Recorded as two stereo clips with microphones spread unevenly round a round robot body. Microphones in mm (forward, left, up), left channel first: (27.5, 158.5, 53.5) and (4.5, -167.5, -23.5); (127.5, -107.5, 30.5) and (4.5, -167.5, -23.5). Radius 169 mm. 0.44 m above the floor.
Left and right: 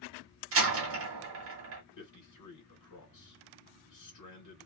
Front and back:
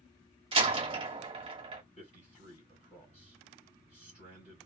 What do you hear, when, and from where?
0.5 s a door slam: 130° right, 1.0 m
2.0 s a man speaking: 80° left, 1.7 m